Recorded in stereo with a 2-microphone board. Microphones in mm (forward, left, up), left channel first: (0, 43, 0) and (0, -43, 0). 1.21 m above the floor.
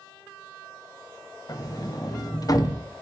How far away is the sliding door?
About 0.7 m.